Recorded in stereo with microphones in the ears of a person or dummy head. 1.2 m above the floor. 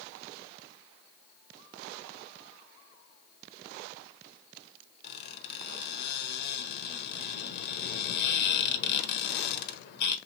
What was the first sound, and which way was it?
A squeak, 60° left (ahead or behind).